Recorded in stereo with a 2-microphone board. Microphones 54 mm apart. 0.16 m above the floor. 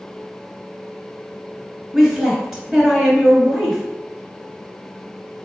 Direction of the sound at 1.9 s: 5° right (ahead or behind).